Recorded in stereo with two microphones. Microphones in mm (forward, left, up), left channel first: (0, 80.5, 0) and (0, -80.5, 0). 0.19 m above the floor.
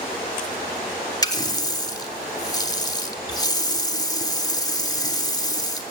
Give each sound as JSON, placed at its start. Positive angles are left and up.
{"t": 1.2, "sound": "a running tap", "side_deg": 25, "distance_m": 0.7}